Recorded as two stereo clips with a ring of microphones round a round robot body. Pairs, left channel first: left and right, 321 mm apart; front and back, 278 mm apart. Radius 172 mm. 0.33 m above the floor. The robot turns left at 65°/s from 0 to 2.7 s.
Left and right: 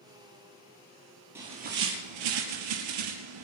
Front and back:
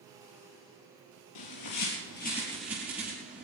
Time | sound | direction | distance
1.4 | a bird | 5° right | 5 m